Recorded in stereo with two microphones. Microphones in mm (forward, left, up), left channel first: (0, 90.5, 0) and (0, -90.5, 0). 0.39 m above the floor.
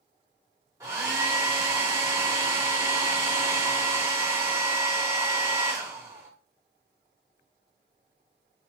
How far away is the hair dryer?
About 1.1 m.